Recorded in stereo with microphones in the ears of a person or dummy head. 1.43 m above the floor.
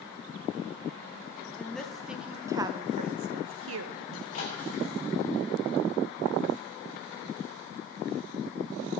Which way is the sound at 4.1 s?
50° left (ahead or behind).